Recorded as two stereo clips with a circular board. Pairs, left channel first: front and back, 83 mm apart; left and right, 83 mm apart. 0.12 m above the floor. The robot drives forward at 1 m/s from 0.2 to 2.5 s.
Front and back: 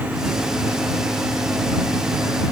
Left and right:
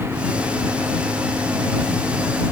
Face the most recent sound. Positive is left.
No sound to turn to.